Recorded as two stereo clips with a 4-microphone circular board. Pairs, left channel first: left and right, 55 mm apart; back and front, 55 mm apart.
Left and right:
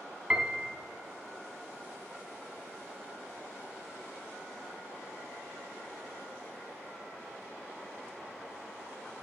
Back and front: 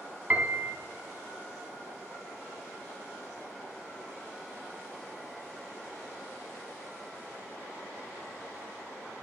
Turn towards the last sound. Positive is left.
turn(degrees=-30)